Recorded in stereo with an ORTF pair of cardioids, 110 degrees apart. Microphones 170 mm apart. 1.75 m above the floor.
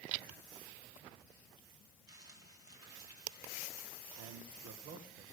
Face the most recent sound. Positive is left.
turn(degrees=-65)